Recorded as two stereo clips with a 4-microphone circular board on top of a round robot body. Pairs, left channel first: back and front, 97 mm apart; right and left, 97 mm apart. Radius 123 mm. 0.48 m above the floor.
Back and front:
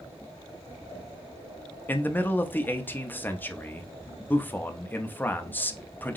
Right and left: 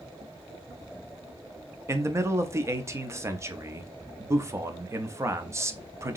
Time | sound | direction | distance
1.9 | a man speaking | 125° left | 0.8 m